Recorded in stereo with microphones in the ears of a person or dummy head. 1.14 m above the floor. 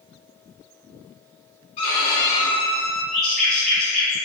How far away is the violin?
About 0.9 m.